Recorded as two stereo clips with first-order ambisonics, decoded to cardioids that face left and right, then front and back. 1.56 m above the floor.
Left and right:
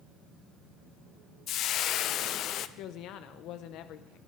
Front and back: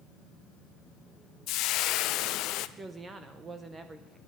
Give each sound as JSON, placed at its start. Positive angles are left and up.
{"t": 1.5, "sound": "frying", "azimuth_deg": 40, "distance_m": 0.5}
{"t": 2.8, "sound": "a woman speaking", "azimuth_deg": 110, "distance_m": 0.7}